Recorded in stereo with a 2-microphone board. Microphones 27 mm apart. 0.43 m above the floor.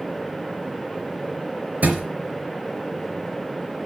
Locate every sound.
1.8 s a thud: 85° right, 3.5 m